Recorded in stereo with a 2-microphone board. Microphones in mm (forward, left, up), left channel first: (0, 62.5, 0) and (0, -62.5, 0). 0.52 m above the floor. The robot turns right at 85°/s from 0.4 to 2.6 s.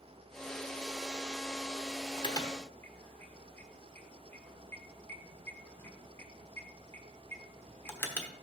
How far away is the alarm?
About 1.1 m.